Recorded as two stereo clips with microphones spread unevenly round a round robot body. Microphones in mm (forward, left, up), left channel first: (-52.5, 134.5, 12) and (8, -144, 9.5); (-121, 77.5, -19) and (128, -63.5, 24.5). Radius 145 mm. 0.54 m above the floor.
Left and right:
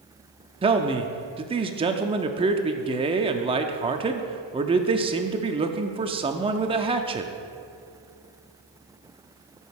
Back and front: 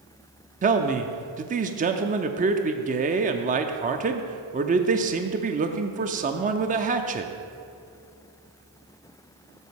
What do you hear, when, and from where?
0.6 s a man speaking: 60° right, 0.6 m